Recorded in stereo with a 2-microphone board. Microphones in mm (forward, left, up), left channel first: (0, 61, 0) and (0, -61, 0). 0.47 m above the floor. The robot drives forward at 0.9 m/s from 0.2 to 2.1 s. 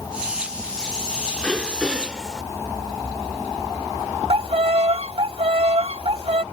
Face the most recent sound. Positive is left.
turn(degrees=-55)  # may be behind; listen again after turning